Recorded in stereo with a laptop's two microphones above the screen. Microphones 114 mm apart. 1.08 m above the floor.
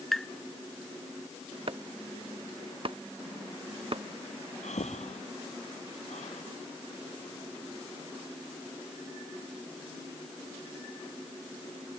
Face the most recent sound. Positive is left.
turn(degrees=90)